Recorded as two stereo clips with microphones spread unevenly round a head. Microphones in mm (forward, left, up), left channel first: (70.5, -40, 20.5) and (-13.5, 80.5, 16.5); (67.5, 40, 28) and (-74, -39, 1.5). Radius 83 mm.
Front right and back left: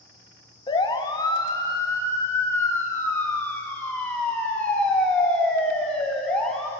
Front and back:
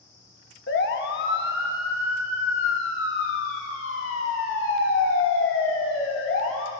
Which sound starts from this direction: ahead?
A siren, at 0.7 s.